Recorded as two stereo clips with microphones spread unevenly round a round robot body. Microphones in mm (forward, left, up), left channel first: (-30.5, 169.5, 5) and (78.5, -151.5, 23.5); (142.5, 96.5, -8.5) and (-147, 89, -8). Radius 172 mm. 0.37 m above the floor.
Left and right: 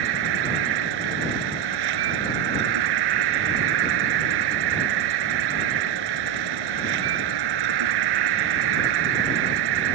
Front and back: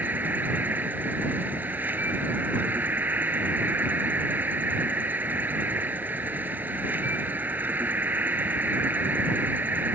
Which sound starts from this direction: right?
An insect, at 0.0 s.